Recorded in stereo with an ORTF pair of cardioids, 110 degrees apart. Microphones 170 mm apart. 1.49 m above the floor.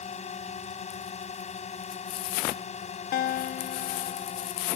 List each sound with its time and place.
0.0 s a drone: 40° left
3.1 s a guitar: 65° left